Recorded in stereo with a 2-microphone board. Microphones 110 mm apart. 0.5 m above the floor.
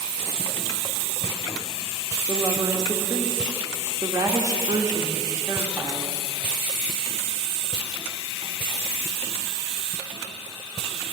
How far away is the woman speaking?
About 0.9 m.